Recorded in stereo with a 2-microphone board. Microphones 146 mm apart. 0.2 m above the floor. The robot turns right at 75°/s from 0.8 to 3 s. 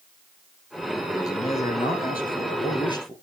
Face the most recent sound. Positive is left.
turn(degrees=155)